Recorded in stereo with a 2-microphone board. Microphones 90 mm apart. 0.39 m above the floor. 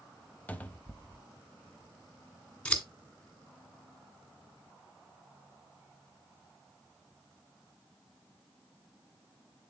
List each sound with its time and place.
0.5 s a cupboard door: 15° left (ahead or behind), 0.7 m
2.6 s scissors: 15° left (ahead or behind), 1.7 m